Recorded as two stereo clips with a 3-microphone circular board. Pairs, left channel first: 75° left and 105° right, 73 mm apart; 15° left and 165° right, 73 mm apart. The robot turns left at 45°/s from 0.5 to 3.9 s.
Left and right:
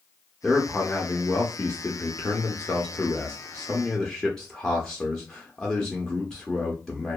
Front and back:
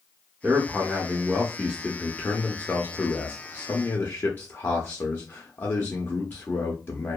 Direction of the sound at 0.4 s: 155° left.